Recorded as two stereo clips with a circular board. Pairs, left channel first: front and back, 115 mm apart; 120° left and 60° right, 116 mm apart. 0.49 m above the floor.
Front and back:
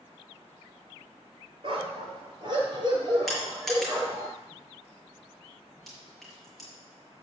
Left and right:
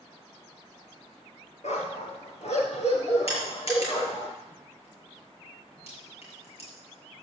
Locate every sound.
1.6 s a dog barking: 140° left, 3 m; by 4.3 s 120° left, 5 m
3.3 s crushing: 90° left, 6.5 m